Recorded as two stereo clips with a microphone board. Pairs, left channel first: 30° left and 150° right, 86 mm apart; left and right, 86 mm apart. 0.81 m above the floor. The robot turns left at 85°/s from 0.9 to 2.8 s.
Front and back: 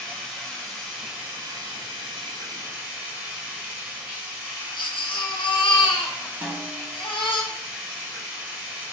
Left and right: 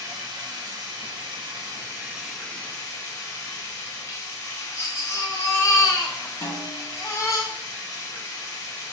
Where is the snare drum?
140° left, 1.6 m.